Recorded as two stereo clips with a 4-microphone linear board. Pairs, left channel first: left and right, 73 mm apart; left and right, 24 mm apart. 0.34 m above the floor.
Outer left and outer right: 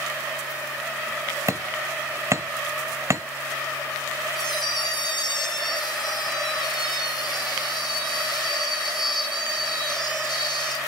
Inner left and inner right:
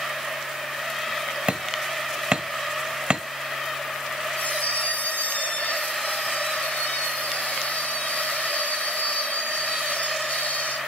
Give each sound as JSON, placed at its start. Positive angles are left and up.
{"t": 1.5, "sound": "hammering", "side_deg": -40, "distance_m": 1.1}
{"t": 4.4, "sound": "a squeak", "side_deg": 90, "distance_m": 4.0}